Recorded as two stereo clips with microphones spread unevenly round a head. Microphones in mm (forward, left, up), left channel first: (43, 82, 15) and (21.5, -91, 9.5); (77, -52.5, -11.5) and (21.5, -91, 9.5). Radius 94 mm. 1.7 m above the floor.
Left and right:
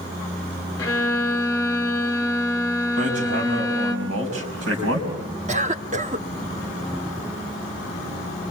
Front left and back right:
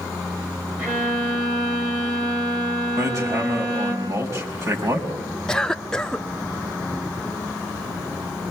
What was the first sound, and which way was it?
A violin, 155° left.